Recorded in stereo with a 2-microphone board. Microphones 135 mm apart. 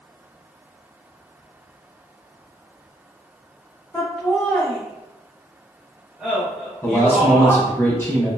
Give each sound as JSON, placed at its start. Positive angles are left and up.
{"t": 3.9, "sound": "laughter", "side_deg": 10, "distance_m": 1.3}
{"t": 6.8, "sound": "a man speaking", "side_deg": 20, "distance_m": 1.0}